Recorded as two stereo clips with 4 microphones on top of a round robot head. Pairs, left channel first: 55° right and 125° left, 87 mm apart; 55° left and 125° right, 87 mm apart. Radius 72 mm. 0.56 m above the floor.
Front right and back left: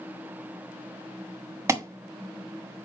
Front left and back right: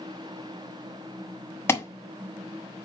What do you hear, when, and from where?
1.7 s an alarm: 95° left, 1.4 m